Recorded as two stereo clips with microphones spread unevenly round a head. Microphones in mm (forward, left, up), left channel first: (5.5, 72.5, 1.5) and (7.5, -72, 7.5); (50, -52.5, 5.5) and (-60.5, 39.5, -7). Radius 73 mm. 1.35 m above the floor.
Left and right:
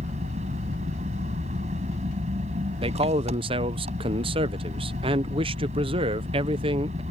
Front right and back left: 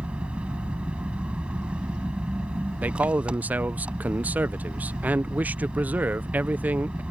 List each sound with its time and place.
0.0 s an engine running: 135° right
2.8 s a man speaking: 145° right